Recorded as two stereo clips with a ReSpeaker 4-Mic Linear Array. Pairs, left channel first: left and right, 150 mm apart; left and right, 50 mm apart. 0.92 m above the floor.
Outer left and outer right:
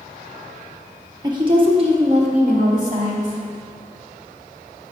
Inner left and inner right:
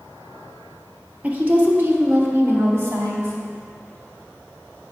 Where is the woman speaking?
25° right (ahead or behind), 1.0 m; by 3.4 s 60° right (ahead or behind), 1.8 m.